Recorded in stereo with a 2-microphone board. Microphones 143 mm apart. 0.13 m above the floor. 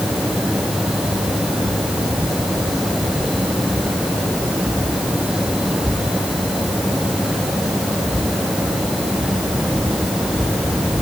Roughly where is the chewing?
I don't hear chewing.